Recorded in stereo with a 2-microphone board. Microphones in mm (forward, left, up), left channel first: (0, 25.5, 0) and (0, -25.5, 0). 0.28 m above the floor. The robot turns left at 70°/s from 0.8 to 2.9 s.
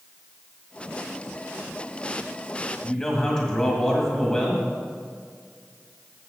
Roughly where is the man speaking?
Centre.